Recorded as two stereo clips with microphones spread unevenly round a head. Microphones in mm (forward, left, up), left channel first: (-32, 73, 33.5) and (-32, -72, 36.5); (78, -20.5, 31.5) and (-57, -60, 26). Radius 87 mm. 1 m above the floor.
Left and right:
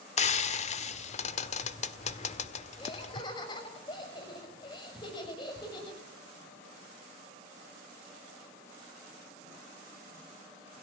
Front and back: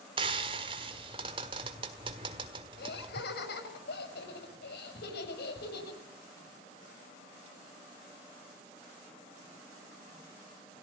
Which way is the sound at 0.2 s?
135° left.